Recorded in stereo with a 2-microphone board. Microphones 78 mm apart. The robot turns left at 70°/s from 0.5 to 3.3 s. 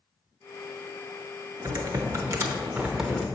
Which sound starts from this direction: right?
Typing on a keyboard, at 1.6 s.